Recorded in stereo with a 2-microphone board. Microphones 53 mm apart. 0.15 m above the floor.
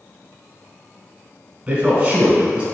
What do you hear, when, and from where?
1.7 s a man speaking: 20° right (ahead or behind), 1.1 m